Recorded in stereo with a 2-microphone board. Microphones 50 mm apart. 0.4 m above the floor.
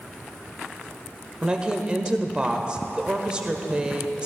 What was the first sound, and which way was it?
A woman speaking, 20° right (ahead or behind).